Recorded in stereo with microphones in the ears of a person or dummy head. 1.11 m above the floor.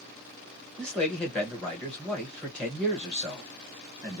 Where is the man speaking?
5° left (ahead or behind), 1.4 m.